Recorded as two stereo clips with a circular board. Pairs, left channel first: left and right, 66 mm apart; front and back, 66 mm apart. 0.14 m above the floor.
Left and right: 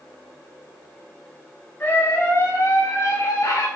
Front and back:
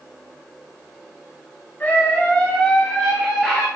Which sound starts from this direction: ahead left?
A scream, at 1.8 s.